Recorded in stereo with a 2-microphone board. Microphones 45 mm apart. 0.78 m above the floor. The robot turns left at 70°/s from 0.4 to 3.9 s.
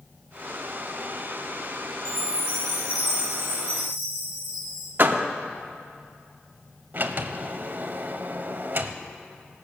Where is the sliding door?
45° right (ahead or behind), 0.7 m.